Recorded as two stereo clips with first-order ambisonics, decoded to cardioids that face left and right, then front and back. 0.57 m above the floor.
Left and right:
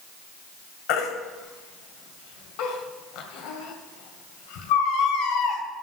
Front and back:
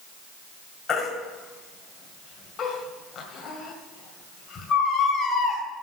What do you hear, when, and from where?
0.9 s a baby crying: 65° left, 2 m